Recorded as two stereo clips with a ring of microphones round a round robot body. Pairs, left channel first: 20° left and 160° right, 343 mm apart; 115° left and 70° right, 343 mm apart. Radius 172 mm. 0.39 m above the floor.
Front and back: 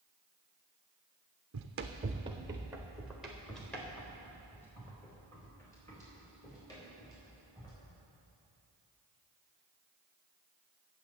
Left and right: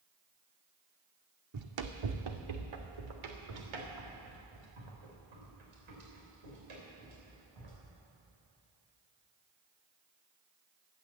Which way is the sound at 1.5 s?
110° right.